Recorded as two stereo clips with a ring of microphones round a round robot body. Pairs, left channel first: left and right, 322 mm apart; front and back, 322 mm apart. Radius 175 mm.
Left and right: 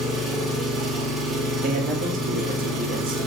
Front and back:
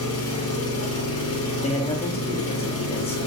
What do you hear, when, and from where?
0.0 s an engine running: straight ahead, 0.8 m
1.6 s a man speaking: 55° right, 0.6 m